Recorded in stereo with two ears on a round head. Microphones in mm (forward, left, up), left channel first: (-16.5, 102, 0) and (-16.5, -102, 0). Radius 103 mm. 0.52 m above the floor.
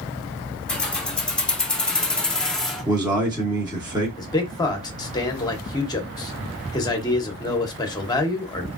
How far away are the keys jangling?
About 1.1 m.